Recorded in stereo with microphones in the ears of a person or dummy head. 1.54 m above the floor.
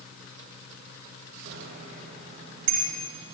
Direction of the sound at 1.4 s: 55° right (ahead or behind).